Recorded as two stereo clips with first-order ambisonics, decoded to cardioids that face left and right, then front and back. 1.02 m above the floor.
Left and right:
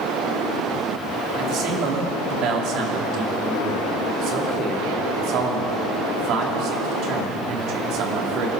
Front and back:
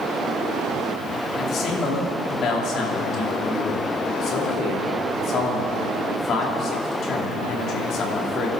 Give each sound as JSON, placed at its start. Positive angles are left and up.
{"t": 1.4, "sound": "a man speaking", "azimuth_deg": -50, "distance_m": 2.5}